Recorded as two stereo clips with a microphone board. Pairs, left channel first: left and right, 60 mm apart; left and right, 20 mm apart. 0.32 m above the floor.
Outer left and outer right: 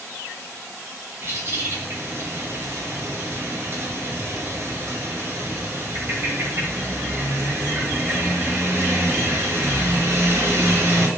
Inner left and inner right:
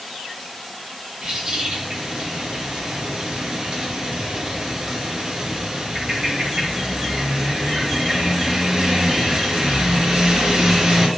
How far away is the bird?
About 0.7 m.